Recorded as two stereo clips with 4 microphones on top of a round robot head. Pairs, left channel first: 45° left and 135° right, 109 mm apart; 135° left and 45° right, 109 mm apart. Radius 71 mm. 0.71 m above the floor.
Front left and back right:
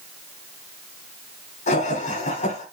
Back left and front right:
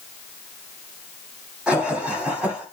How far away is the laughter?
About 6 m.